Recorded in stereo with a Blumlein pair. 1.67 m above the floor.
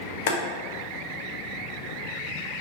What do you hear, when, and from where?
0.3 s boiling: 50° left, 0.6 m